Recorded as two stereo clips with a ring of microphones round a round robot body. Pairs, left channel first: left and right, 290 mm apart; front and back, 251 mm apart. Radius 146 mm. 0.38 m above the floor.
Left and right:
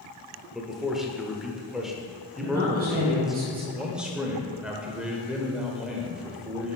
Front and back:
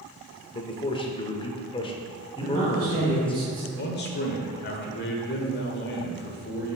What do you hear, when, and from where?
0.5 s a man speaking: 5° right, 0.8 m
2.4 s a man speaking: 150° right, 2 m
3.7 s a man speaking: 5° right, 1.2 m